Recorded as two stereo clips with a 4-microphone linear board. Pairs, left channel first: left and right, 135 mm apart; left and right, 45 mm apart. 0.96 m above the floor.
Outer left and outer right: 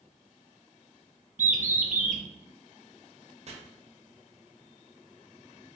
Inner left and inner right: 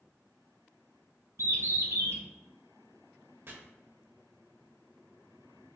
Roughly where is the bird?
Right.